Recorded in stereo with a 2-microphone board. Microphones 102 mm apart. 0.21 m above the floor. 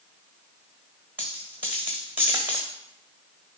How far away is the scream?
No scream in this recording.